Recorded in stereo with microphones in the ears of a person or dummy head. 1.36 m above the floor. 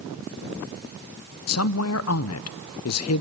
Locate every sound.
1.5 s a woman speaking: 80° left, 0.6 m